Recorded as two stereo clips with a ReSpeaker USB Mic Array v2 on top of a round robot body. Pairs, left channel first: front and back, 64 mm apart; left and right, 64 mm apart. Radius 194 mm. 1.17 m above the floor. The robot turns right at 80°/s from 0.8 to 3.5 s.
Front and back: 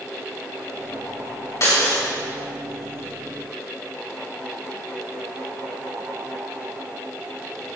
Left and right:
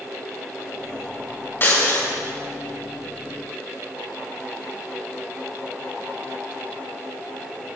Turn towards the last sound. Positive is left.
turn(degrees=-170)